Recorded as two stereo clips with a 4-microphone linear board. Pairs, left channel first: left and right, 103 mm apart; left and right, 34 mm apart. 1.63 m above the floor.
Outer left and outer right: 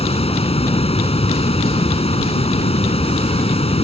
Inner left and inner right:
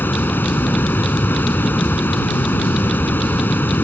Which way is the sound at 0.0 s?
80° left.